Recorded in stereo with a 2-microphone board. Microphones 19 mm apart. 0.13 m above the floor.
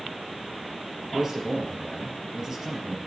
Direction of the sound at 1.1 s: 25° right (ahead or behind).